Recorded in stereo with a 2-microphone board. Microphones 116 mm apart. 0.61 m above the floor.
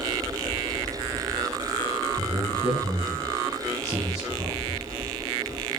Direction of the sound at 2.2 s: 30° right (ahead or behind).